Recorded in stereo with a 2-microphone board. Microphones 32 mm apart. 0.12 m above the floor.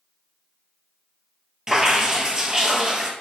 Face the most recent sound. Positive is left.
turn(degrees=-20)  # may be behind; listen again after turning